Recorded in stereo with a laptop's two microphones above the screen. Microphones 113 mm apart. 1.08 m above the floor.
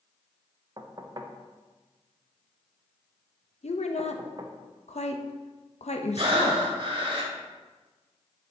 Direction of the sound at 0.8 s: 40° right (ahead or behind).